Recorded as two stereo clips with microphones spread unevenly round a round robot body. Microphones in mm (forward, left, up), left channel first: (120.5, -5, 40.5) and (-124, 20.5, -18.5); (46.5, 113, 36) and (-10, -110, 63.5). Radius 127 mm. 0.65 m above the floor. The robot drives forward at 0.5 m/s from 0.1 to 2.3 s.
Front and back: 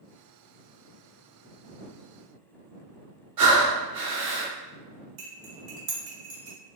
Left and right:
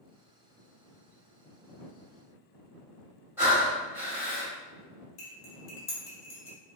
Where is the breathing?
175° left, 1.2 m.